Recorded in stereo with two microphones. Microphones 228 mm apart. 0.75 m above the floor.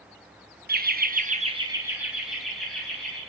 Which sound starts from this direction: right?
Laughter, at 0.7 s.